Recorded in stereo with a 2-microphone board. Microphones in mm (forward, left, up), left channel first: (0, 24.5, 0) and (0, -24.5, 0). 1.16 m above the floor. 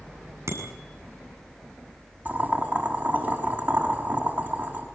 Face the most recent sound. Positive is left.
turn(degrees=-35)  # may be behind; listen again after turning